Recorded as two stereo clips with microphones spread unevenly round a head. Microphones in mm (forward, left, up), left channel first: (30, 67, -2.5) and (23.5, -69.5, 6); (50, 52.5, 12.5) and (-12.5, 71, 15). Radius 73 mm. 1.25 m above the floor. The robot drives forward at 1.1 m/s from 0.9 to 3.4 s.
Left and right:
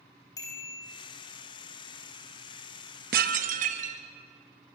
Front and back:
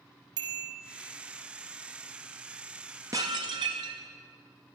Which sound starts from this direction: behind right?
Dishes clattering, at 3.1 s.